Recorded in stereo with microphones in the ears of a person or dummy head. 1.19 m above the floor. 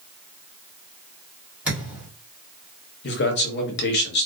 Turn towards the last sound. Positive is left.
turn(degrees=50)  # may be behind; listen again after turning